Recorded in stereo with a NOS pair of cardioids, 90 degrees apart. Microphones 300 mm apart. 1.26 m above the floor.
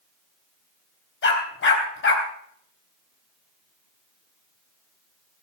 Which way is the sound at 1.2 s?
45° left.